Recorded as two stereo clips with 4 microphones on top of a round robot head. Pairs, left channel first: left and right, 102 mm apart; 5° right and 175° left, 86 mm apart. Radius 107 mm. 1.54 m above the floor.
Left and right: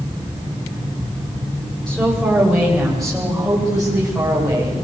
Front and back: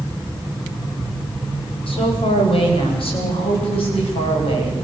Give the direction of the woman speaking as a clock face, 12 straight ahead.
12 o'clock.